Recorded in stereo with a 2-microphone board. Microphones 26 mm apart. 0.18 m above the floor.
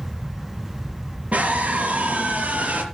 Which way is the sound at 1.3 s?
65° right (ahead or behind).